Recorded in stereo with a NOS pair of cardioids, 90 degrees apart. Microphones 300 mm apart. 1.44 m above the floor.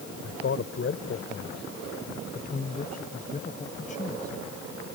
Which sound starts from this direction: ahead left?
A man speaking, at 0.2 s.